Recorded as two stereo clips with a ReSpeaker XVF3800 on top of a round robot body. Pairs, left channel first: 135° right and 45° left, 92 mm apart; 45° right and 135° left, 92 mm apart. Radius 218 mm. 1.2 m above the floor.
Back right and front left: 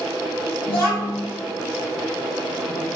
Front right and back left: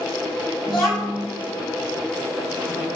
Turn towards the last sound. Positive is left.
turn(degrees=-135)